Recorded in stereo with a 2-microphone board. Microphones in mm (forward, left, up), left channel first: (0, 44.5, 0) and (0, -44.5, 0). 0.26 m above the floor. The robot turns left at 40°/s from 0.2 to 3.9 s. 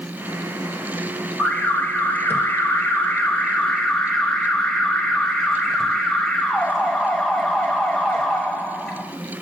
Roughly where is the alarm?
Centre.